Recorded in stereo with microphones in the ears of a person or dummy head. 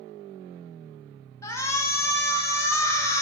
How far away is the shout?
About 0.6 m.